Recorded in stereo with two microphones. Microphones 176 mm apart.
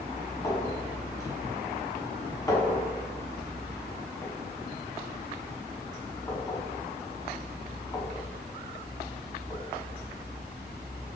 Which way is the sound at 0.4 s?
20° left (ahead or behind).